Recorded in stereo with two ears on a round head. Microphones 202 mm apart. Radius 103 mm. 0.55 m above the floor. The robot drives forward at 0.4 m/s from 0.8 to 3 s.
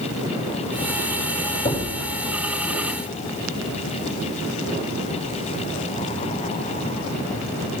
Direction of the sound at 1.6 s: 30° left (ahead or behind).